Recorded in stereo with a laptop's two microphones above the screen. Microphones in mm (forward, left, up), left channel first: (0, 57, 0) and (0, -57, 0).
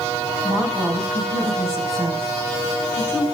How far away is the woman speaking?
About 6 m.